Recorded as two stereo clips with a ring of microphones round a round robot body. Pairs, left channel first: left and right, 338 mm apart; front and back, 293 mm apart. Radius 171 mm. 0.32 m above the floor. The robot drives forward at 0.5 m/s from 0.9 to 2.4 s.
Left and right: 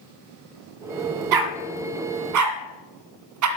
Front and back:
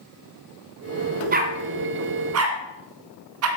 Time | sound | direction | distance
1.3 | a dog barking | 115° right | 1.4 m